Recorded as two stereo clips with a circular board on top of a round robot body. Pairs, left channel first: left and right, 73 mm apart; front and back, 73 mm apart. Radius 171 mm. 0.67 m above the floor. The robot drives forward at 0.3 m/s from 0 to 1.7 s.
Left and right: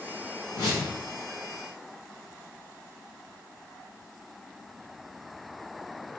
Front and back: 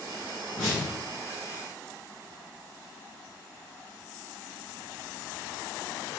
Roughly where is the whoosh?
Behind left.